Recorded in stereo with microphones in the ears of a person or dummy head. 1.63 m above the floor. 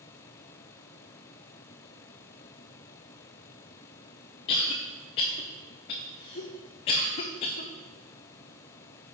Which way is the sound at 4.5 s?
30° left (ahead or behind).